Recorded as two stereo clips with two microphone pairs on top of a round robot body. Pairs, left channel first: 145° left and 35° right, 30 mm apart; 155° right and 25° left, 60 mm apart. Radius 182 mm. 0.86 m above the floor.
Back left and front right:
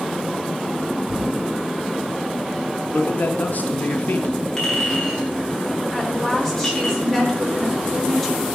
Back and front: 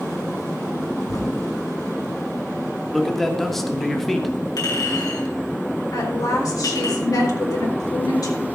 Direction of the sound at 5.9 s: 140° right.